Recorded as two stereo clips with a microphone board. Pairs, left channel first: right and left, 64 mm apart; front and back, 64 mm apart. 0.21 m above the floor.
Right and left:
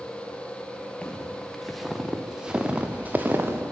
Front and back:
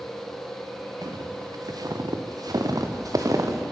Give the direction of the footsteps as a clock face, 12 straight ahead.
6 o'clock.